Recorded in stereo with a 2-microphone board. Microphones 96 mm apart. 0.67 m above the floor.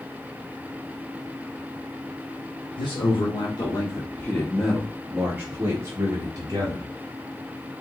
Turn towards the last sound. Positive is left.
turn(degrees=-45)  # may be behind; listen again after turning